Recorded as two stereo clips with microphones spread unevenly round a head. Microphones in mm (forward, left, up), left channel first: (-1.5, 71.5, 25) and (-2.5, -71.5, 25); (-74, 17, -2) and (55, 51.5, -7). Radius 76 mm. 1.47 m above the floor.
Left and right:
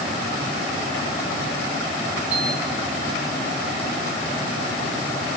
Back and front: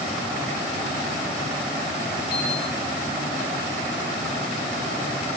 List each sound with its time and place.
2.3 s a piano: 170° right, 5 m